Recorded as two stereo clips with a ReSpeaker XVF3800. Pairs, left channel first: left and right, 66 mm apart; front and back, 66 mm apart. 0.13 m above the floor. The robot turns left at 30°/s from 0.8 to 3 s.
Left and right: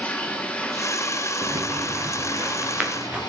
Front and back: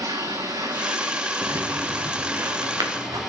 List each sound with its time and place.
0.0 s running water: 160° left, 3 m; by 3.3 s 90° left, 3 m
1.4 s footsteps: 125° right, 1.5 m; by 3.2 s 165° right, 3.5 m